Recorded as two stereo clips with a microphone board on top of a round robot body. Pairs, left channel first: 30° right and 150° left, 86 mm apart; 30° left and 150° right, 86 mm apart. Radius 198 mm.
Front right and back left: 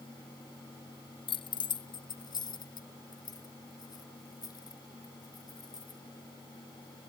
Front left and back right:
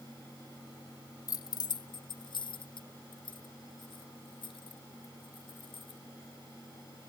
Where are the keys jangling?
15° right; by 6.0 s 15° left.